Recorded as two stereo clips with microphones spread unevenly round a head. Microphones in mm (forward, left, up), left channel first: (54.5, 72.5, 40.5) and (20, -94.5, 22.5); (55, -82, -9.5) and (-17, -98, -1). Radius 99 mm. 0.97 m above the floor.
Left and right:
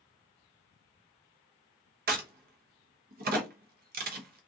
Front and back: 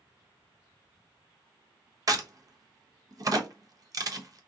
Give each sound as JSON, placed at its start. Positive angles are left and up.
{"t": 2.1, "sound": "a crack", "azimuth_deg": -130, "distance_m": 0.7}